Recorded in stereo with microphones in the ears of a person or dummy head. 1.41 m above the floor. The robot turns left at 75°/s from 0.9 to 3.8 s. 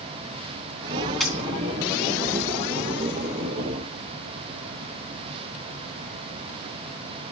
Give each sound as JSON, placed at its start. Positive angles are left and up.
{"t": 1.2, "sound": "a dropped coin", "side_deg": 5, "distance_m": 3.0}